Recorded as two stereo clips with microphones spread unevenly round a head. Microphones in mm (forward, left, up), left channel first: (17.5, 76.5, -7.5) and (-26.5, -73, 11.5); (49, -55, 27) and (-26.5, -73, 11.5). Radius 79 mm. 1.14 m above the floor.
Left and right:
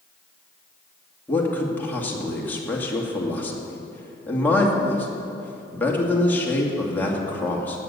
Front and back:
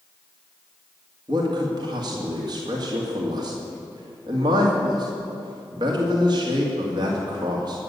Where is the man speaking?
150° left, 2.5 m.